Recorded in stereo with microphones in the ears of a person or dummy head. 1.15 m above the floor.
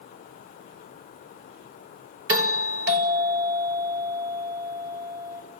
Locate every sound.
2.3 s a doorbell: 65° right (ahead or behind), 1.7 m